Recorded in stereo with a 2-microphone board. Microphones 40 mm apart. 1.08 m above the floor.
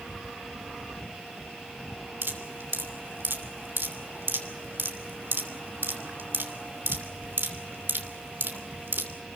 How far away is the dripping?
About 3 m.